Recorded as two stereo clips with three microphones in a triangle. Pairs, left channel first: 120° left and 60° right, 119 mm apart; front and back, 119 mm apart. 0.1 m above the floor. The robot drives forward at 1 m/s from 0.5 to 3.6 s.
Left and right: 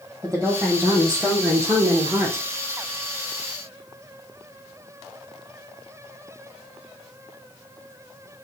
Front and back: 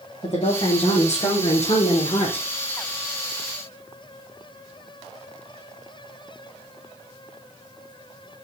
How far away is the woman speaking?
About 4 m.